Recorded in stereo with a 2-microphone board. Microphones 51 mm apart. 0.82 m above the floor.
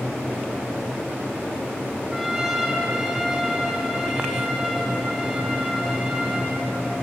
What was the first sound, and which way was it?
A trumpet, 5° left (ahead or behind).